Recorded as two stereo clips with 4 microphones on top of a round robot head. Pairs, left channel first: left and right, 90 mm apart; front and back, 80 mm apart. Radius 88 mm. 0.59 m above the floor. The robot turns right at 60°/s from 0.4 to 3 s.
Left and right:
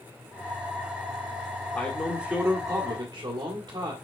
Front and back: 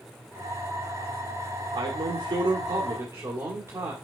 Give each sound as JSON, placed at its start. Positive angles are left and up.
{"t": 1.7, "sound": "a man speaking", "azimuth_deg": 150, "distance_m": 1.9}